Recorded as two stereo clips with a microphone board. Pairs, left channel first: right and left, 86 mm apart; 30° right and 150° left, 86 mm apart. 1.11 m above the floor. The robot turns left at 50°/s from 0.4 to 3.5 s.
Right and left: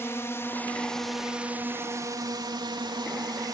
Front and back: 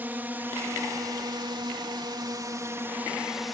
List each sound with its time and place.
0.0 s a drone: 145° right; by 3.5 s 60° left